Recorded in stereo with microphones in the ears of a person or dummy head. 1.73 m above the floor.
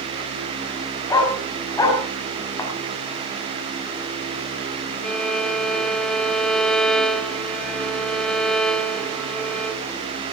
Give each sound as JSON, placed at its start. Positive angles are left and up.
{"t": 1.1, "sound": "a dog barking", "side_deg": 20, "distance_m": 5.5}
{"t": 2.6, "sound": "a thud", "side_deg": 20, "distance_m": 6.0}
{"t": 5.0, "sound": "a violin", "side_deg": 0, "distance_m": 1.0}